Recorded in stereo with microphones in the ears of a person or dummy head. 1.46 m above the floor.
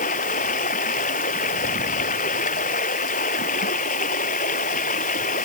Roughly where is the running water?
Left.